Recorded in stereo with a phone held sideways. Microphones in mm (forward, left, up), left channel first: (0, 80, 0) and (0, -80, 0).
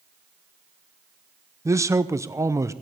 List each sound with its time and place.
1.6 s a man speaking: 20° right (ahead or behind), 0.7 m